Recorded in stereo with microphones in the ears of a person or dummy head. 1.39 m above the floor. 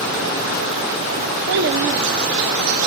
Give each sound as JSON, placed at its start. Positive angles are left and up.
{"t": 1.5, "sound": "a child speaking", "side_deg": -60, "distance_m": 0.9}